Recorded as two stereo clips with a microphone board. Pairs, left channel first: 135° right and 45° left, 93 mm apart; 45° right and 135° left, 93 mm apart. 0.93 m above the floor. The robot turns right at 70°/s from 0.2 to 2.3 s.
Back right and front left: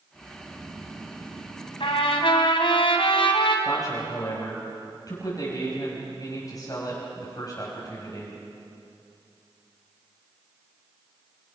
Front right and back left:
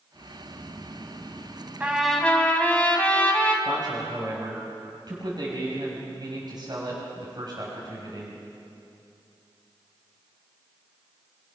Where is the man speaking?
175° left, 5.5 m.